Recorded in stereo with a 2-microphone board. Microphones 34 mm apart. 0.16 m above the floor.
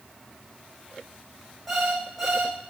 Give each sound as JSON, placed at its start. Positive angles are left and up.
{"t": 1.7, "sound": "an alarm clock", "side_deg": 10, "distance_m": 4.0}